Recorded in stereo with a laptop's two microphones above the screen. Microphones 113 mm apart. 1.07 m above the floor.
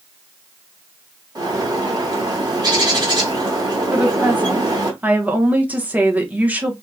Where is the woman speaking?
15° right (ahead or behind), 0.7 m.